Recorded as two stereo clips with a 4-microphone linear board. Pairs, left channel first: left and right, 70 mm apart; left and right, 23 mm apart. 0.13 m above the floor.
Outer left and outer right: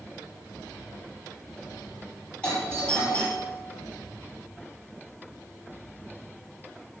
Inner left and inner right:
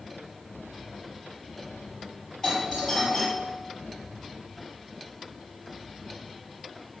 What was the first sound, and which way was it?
A doorbell, 20° left (ahead or behind).